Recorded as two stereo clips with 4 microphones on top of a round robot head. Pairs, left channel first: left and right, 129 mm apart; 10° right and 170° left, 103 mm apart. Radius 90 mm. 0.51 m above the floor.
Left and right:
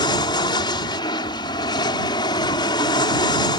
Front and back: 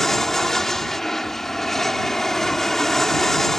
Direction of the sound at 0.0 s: 75° left.